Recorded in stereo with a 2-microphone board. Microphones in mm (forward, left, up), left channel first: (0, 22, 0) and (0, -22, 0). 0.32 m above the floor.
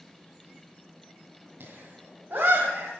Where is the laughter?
45° right (ahead or behind), 2.5 m.